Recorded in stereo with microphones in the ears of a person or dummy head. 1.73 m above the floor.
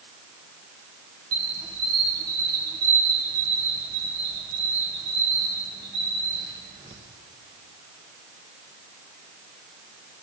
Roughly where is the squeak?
Centre.